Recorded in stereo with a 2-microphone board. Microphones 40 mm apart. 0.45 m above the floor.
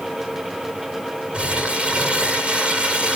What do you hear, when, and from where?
1.3 s crumpling: 25° right (ahead or behind), 2 m